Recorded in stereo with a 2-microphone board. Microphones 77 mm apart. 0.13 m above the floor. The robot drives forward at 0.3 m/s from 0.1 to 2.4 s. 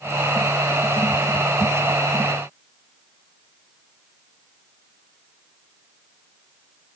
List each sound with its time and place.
Only background noise.